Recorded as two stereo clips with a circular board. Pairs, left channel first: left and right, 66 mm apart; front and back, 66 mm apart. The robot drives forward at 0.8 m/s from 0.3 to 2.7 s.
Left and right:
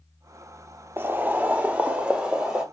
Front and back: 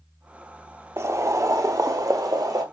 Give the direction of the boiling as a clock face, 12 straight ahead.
5 o'clock.